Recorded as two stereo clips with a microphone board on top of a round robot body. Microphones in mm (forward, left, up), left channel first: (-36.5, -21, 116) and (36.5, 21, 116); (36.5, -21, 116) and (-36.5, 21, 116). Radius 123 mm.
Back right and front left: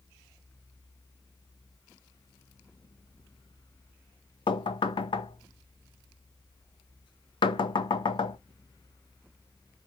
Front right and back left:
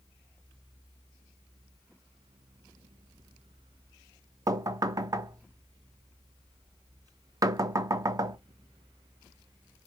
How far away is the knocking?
About 0.7 m.